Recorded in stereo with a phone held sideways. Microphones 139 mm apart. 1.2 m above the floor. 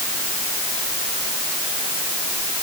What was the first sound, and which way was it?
Only background noise.